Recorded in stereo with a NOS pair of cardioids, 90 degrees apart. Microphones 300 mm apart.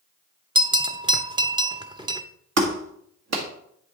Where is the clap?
55° right, 1.8 m.